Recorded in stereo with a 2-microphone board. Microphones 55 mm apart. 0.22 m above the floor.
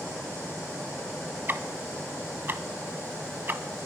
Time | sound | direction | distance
1.5 | ticking | 35° right (ahead or behind) | 0.9 m